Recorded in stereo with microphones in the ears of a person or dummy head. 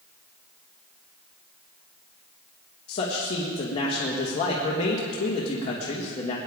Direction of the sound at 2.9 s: 30° left (ahead or behind).